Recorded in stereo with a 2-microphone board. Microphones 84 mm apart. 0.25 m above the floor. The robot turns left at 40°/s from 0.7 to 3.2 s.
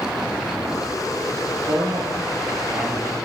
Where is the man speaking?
120° right, 5 m; by 3.1 s straight behind, 5 m.